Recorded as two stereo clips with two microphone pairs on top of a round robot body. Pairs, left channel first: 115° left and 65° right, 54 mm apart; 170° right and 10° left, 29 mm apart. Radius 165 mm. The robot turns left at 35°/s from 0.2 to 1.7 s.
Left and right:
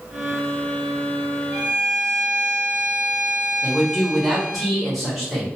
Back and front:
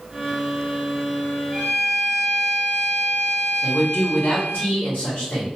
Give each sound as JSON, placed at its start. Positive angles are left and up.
{"t": 1.5, "sound": "a violin", "azimuth_deg": -95, "distance_m": 1.5}
{"t": 3.6, "sound": "a man speaking", "azimuth_deg": -155, "distance_m": 1.3}